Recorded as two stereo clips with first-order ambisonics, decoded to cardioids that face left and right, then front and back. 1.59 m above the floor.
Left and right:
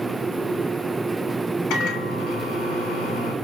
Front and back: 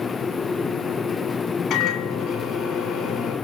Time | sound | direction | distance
1.7 | a microwave | 55° left | 6.5 m